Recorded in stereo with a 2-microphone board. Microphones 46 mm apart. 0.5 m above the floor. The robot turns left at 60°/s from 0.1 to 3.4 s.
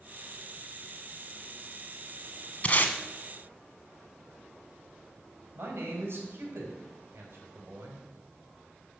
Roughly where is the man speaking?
Right.